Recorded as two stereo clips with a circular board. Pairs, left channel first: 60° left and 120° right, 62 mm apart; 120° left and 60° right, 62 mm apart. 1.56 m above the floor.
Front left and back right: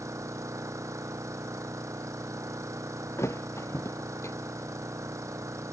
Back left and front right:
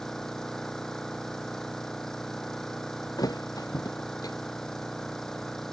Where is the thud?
105° left.